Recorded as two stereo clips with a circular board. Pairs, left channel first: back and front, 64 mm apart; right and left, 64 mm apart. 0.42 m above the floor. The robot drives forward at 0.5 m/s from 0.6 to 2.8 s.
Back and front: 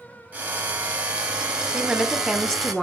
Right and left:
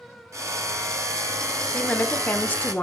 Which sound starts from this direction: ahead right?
A woman speaking, at 1.7 s.